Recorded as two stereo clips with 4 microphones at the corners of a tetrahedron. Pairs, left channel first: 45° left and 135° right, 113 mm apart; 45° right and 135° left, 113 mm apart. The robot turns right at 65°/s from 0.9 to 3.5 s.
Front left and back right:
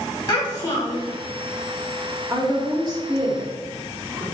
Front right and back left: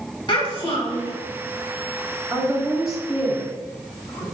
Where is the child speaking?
5° right, 1.6 m; by 1.1 s 10° left, 1.6 m.